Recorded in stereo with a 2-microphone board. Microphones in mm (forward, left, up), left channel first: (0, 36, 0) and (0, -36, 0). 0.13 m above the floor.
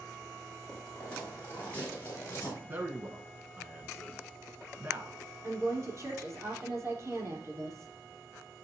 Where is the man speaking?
30° right (ahead or behind), 1.4 m.